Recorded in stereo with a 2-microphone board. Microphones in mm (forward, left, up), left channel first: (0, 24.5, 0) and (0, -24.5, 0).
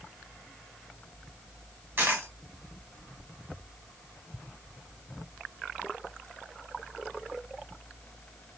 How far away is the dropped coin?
About 1.2 m.